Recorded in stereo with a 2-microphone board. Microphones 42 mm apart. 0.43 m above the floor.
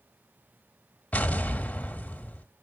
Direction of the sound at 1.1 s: 35° left (ahead or behind).